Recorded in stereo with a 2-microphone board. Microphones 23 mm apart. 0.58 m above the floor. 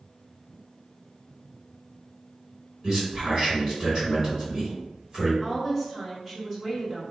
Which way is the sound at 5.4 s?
15° right (ahead or behind).